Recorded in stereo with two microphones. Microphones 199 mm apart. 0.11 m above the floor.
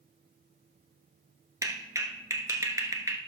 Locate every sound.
1.6 s a clap: 15° right (ahead or behind), 1.3 m